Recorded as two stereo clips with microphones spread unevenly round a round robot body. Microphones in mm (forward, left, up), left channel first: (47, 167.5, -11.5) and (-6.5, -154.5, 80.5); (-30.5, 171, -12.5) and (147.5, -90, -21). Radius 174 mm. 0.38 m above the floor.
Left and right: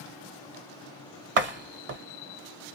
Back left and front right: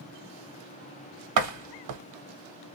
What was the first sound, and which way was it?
A door slam, 35° right.